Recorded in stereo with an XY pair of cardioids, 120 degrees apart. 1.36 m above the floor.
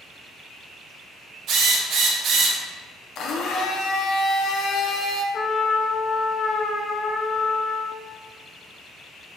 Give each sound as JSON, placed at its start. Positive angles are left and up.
{"t": 1.5, "sound": "a drill", "azimuth_deg": -65, "distance_m": 1.1}
{"t": 3.1, "sound": "a blender", "azimuth_deg": 60, "distance_m": 0.6}
{"t": 5.3, "sound": "a trumpet", "azimuth_deg": 35, "distance_m": 0.6}